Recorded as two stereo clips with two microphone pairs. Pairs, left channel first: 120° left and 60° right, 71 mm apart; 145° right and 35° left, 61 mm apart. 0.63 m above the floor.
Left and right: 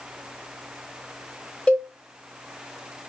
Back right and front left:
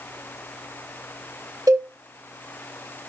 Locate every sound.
1.7 s a cowbell: 50° left, 0.6 m